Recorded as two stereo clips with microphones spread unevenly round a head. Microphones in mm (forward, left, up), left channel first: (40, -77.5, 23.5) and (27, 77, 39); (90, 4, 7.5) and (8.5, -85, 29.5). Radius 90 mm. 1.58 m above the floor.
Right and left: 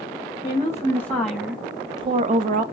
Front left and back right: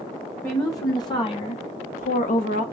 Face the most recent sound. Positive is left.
turn(degrees=65)